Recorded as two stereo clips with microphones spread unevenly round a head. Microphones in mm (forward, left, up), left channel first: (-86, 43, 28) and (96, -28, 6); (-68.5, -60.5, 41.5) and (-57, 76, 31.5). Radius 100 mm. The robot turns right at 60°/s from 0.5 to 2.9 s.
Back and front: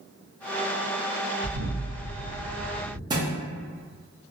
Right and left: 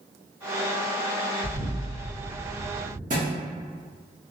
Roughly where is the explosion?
Ahead.